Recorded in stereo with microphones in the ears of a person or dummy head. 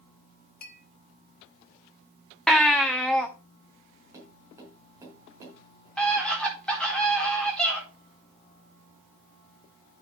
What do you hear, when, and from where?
0.6 s a clink: 55° left (ahead or behind), 1.4 m
2.5 s a baby crying: centre (ahead or behind), 0.8 m
4.1 s tapping: 15° right (ahead or behind), 4.5 m
6.0 s a scream: 5° left (ahead or behind), 4 m